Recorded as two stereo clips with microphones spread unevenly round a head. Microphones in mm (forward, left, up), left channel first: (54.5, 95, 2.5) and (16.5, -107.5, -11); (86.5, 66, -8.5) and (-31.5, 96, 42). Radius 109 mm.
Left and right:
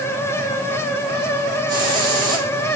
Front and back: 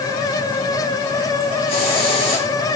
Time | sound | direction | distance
1.7 | a hiss | 30° right | 3.5 m